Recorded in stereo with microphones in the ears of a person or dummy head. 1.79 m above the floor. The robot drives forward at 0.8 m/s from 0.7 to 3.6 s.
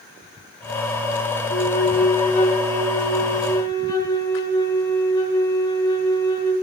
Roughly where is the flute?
Left.